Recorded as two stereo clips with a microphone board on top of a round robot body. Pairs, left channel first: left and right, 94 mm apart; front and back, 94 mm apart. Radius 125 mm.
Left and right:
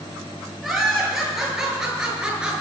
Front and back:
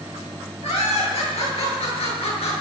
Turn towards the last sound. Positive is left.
turn(degrees=-10)